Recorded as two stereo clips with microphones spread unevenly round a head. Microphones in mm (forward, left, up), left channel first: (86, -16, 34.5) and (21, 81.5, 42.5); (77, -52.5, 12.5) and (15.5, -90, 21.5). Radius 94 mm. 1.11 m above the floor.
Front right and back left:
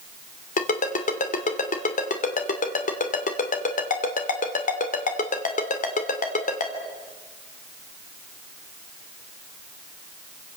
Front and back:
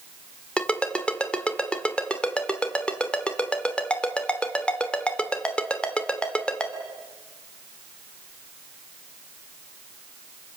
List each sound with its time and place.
0.6 s a ringtone: 45° right, 2.5 m